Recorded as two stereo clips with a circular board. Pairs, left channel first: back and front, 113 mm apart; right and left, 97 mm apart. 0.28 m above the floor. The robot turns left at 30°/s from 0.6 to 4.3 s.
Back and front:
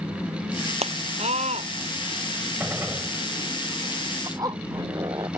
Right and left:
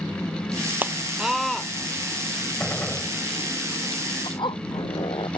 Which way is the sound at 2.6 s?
40° right.